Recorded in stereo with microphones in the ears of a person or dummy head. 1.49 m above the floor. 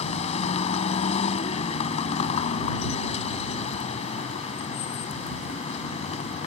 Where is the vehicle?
40° left (ahead or behind).